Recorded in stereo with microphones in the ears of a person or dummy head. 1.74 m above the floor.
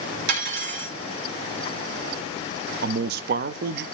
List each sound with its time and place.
0.3 s cutlery clinking: 65° right (ahead or behind), 2 m
2.8 s a man speaking: 55° right (ahead or behind), 0.5 m